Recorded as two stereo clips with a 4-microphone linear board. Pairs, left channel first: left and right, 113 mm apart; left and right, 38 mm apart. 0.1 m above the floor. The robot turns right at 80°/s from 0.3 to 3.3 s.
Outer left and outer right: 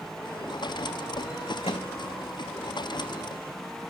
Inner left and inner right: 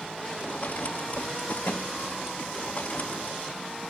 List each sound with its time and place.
1.6 s a microwave: 60° left (ahead or behind), 5 m; by 1.9 s 75° left (ahead or behind), 5 m